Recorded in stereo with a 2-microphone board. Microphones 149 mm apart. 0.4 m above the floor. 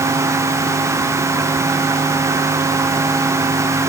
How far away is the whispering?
I don't hear whispering.